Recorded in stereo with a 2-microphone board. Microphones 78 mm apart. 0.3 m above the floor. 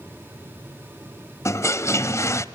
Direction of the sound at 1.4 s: 40° left (ahead or behind).